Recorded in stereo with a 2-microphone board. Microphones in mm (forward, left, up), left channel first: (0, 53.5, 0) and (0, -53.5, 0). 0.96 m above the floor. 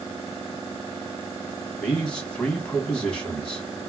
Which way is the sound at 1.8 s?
10° left (ahead or behind).